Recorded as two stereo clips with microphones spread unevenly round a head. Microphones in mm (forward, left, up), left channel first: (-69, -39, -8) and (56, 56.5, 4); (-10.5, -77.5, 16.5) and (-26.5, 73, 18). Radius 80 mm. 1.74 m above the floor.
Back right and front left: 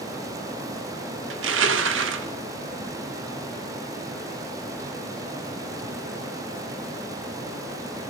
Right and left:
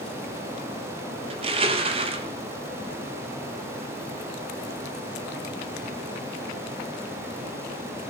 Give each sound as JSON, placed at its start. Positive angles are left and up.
{"t": 1.3, "sound": "crushing", "azimuth_deg": 40, "distance_m": 3.0}